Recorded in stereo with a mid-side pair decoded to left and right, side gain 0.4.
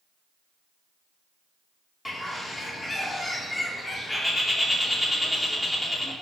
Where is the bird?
20° left, 3 m.